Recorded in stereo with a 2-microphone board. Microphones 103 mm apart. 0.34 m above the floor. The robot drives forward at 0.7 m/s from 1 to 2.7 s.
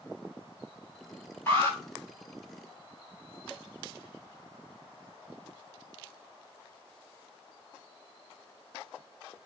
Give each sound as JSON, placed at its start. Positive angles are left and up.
{"t": 1.5, "sound": "an alarm", "side_deg": 20, "distance_m": 3.0}